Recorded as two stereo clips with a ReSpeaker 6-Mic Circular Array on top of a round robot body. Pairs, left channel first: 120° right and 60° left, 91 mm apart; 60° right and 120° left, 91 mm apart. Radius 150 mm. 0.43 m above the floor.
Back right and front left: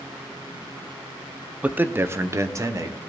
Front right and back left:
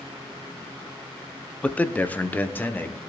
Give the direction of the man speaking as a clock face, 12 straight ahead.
12 o'clock.